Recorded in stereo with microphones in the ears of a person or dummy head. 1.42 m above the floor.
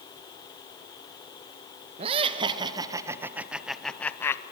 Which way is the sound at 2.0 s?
35° right (ahead or behind).